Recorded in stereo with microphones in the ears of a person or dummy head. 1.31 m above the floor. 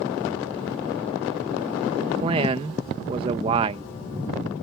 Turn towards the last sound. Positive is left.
turn(degrees=-35)  # may be behind; listen again after turning